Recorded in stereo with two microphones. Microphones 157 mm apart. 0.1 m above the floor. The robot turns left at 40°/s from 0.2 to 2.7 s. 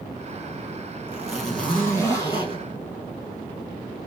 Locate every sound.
1.1 s a zipper: 170° right, 1.7 m; by 2.6 s 130° left, 1.7 m